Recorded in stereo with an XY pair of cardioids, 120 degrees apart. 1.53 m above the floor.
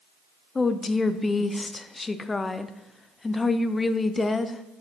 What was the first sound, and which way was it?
A woman speaking, 25° left.